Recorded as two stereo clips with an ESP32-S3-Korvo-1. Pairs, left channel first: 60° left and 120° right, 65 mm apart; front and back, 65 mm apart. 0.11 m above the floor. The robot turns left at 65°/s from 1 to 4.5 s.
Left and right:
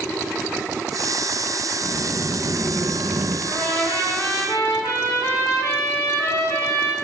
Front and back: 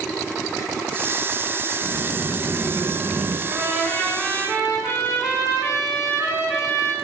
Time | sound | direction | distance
1.8 | a sliding door | 55° right | 1.5 m
3.5 | a trumpet | 115° left | 4.5 m